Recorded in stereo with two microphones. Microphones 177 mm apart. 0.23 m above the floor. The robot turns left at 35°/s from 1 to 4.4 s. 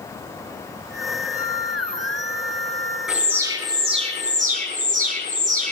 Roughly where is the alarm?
Ahead.